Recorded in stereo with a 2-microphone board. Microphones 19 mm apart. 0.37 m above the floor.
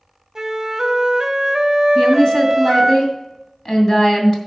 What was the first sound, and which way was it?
A flute, 25° right (ahead or behind).